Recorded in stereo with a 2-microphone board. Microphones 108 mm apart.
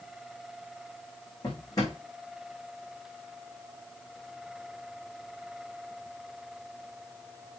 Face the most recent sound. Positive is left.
turn(degrees=35)  # may be behind; listen again after turning